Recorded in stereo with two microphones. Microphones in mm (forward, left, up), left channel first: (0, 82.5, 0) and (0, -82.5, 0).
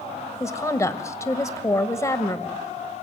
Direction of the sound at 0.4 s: 20° left (ahead or behind).